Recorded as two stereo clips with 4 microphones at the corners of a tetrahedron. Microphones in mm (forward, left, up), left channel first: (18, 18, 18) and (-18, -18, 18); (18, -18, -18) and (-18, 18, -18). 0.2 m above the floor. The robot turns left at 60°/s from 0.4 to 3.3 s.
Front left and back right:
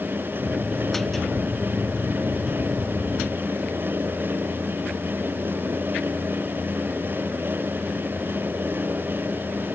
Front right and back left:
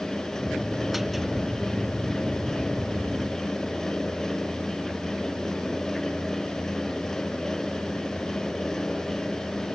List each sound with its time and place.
Only background noise.